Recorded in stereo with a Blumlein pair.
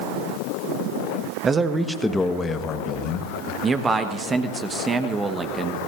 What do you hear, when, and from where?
1.4 s a man speaking: 20° right, 1.2 m; by 3.5 s 45° left, 1.7 m
3.6 s a man speaking: 15° right, 1.1 m